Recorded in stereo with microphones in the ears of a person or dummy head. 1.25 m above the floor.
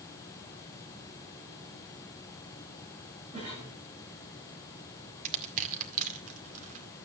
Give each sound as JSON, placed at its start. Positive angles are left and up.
{"t": 3.3, "sound": "a cough", "side_deg": -40, "distance_m": 8.5}
{"t": 5.2, "sound": "crushing", "side_deg": -50, "distance_m": 2.0}